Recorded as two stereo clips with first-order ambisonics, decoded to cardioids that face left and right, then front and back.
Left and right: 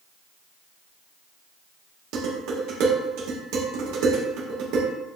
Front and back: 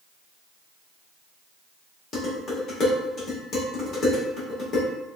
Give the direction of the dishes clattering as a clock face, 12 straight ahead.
2 o'clock.